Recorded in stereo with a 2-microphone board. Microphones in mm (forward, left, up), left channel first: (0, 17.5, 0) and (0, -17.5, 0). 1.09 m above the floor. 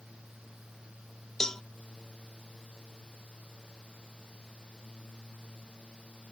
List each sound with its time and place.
1.4 s a cowbell: 20° left (ahead or behind)